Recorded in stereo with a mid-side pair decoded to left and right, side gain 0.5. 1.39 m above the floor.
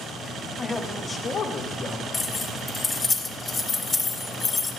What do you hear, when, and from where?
0.6 s a man speaking: 20° left, 1.2 m; by 2.0 s 55° left, 1.5 m
2.1 s keys jangling: 30° left, 1.3 m